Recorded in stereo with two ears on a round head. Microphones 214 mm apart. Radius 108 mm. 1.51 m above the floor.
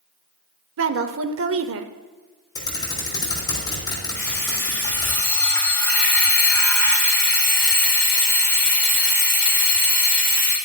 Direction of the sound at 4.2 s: 10° left (ahead or behind).